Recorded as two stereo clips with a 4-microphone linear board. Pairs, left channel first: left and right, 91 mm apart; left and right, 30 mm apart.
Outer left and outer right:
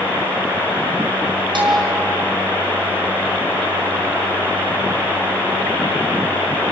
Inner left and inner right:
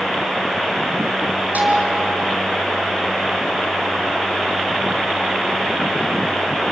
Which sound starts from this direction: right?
A bell, at 1.6 s.